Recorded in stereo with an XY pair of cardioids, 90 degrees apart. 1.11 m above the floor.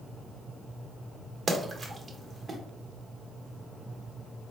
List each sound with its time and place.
1.5 s a splash: 40° right, 1.0 m